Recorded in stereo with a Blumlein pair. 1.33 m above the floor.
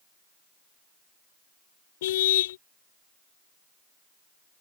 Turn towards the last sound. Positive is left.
turn(degrees=55)